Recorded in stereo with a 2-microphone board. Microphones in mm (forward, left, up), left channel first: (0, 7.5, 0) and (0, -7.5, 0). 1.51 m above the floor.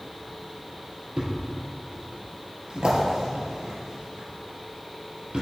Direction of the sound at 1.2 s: 60° right (ahead or behind).